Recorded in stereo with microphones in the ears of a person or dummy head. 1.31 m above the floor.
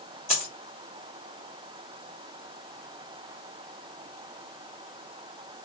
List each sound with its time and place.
0.3 s a dropped coin: 30° left (ahead or behind), 0.8 m